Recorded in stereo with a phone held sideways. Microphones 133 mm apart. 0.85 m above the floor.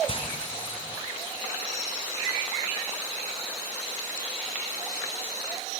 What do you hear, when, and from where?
0.1 s frying: 40° left (ahead or behind), 3 m